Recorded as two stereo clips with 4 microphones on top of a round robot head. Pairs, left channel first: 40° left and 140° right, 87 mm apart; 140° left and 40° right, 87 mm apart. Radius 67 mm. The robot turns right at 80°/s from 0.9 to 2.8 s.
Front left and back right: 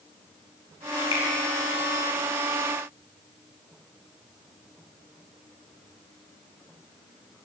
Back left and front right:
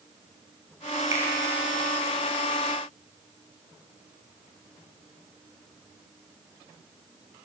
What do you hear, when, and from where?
1.1 s a finger snap: 15° left, 1.4 m; by 1.3 s 25° left, 1.4 m